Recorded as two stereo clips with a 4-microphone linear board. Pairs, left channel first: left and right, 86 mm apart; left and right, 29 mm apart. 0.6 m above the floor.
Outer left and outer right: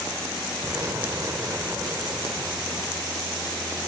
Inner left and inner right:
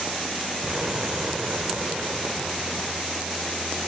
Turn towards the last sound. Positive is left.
turn(degrees=-35)  # may be behind; listen again after turning